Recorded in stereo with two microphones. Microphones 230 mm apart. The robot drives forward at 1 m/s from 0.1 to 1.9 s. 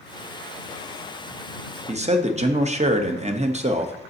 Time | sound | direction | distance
1.9 | a man speaking | 30° right (ahead or behind) | 0.8 m